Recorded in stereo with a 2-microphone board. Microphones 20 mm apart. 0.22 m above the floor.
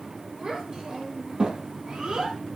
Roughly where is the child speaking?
Right.